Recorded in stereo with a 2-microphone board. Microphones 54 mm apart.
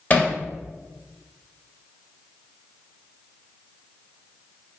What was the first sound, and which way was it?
Hammering, 30° left (ahead or behind).